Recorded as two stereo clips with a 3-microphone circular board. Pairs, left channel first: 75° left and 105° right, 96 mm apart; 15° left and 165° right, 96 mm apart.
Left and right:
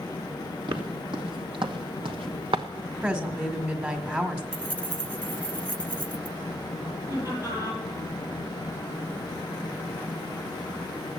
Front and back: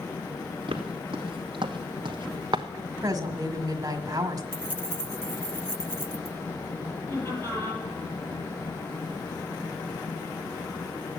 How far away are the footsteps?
About 2.5 m.